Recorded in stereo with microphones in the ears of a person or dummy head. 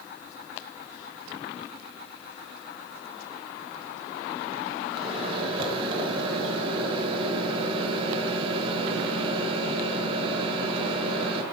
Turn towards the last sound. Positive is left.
turn(degrees=-30)  # may be behind; listen again after turning